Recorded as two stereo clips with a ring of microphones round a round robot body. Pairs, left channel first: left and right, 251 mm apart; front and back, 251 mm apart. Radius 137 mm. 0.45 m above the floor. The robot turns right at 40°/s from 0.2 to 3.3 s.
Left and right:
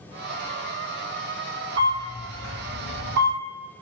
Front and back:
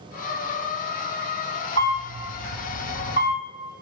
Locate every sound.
1.8 s a camera shutter: 50° right, 2.0 m; by 3.4 s 10° left, 2.0 m